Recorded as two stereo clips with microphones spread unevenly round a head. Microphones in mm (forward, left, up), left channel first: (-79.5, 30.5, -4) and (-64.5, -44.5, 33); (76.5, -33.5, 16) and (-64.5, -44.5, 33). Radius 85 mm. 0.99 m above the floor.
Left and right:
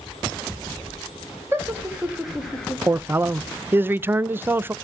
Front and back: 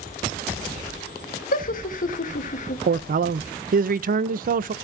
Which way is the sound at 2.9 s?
155° right.